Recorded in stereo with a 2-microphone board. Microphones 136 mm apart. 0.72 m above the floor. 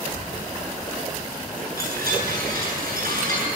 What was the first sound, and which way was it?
A chime, 85° right.